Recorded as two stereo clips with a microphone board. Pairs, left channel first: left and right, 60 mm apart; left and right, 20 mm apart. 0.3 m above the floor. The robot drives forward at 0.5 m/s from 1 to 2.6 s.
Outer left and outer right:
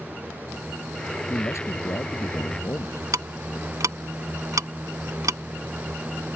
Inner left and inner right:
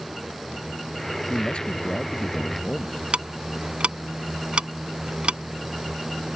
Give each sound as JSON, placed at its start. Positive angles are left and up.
{"t": 1.3, "sound": "a man speaking", "side_deg": 50}
{"t": 3.1, "sound": "ticking", "side_deg": -70}